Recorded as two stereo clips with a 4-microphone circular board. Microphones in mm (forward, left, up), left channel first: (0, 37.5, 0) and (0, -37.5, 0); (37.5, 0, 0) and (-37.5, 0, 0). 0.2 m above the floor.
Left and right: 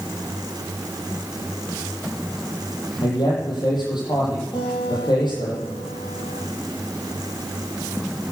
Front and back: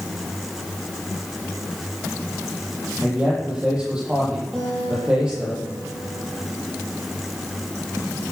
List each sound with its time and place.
3.0 s a man speaking: 105° left, 7.5 m
4.5 s a guitar: 90° left, 6 m